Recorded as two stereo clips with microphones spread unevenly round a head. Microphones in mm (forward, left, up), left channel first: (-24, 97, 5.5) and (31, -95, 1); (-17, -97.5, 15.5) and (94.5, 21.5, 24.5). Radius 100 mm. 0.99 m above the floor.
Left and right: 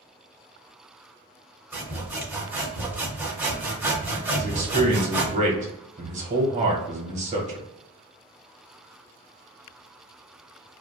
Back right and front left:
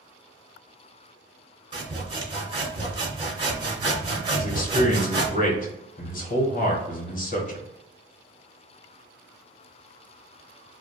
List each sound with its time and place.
1.7 s sawing: 5° left, 0.9 m
4.4 s a man speaking: 120° right, 1.2 m